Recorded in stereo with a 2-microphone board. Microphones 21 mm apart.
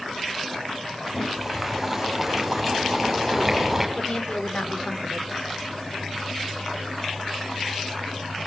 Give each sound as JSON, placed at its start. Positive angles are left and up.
{"t": 1.1, "sound": "boiling", "side_deg": -5, "distance_m": 6.5}
{"t": 4.0, "sound": "a woman speaking", "side_deg": 50, "distance_m": 4.5}